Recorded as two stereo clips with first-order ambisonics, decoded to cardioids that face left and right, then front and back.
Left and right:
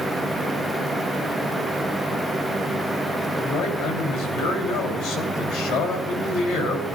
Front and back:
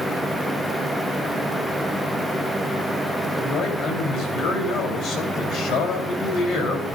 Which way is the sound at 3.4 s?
55° left.